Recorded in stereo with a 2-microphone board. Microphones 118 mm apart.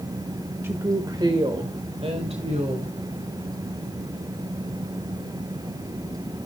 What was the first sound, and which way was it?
A woman speaking, 20° right (ahead or behind).